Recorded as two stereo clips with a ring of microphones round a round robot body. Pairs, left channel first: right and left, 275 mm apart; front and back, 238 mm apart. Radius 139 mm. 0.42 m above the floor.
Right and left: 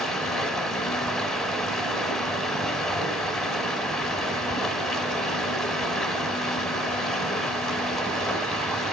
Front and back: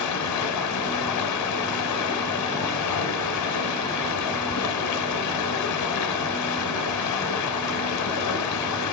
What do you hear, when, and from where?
0.0 s running water: straight ahead, 0.8 m